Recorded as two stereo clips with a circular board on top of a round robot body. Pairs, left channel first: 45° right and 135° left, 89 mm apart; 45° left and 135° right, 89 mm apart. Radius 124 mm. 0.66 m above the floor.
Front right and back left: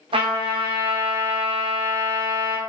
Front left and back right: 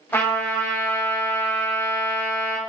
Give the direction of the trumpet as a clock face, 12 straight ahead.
8 o'clock.